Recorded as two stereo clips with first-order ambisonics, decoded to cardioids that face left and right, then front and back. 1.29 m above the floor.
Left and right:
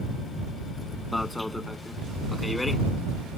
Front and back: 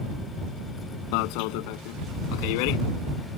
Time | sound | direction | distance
1.1 | an alarm | 5° left | ?